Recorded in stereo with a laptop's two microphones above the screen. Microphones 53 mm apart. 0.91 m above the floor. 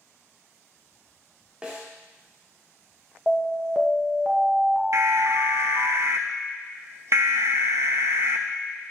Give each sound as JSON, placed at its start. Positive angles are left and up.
{"t": 1.6, "sound": "a snare drum", "side_deg": -20, "distance_m": 1.5}
{"t": 3.3, "sound": "an alarm", "side_deg": -15, "distance_m": 1.2}
{"t": 4.9, "sound": "an alarm", "side_deg": -60, "distance_m": 0.6}